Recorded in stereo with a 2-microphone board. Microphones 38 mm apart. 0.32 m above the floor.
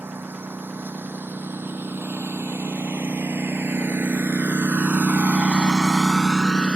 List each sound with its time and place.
0.0 s a lawn mower: 75° right (ahead or behind); by 6.8 s 30° left (ahead or behind)